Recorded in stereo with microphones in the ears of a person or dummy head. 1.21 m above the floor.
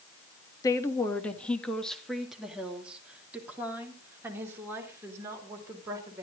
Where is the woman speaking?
20° left (ahead or behind), 1.6 m; by 6.2 s 20° right (ahead or behind), 4.5 m.